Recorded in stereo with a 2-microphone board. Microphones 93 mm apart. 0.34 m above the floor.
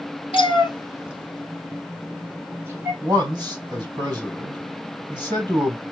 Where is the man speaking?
45° right (ahead or behind), 2 m.